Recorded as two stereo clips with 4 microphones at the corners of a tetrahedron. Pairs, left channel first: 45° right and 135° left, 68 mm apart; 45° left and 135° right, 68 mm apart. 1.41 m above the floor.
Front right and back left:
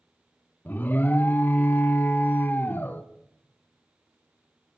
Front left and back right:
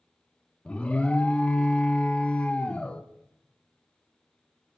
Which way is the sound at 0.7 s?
15° right.